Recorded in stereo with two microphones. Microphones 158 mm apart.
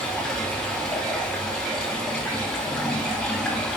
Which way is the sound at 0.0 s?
5° left (ahead or behind).